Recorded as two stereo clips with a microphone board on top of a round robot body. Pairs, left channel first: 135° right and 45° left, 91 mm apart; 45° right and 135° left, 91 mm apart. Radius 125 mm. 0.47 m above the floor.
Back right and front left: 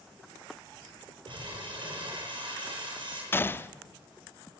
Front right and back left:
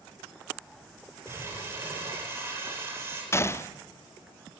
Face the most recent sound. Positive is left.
turn(degrees=-85)